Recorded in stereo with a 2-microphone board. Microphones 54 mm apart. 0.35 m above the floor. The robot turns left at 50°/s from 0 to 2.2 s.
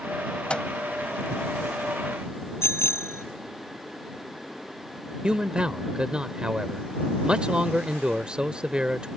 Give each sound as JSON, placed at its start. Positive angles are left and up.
{"t": 0.5, "sound": "a microwave", "side_deg": 20}
{"t": 2.6, "sound": "a bicycle bell", "side_deg": 55}
{"t": 5.2, "sound": "a man speaking", "side_deg": -20}